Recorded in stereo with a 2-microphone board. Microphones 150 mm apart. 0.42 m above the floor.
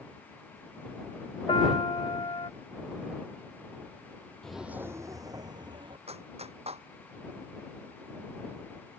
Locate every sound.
1.5 s a piano: 35° left (ahead or behind)
4.4 s footsteps: 5° left (ahead or behind); by 6.0 s 30° right (ahead or behind)
6.1 s a clap: 40° right (ahead or behind)